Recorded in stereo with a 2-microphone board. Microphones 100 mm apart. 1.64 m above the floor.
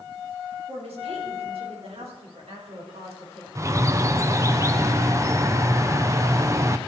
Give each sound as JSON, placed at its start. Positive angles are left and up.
{"t": 0.7, "sound": "a woman speaking", "side_deg": -80, "distance_m": 4.5}
{"t": 3.5, "sound": "a bird", "side_deg": -30, "distance_m": 0.7}